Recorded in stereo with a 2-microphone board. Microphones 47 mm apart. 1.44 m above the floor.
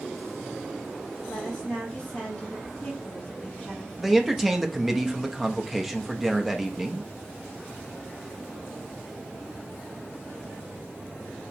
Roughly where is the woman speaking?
Centre.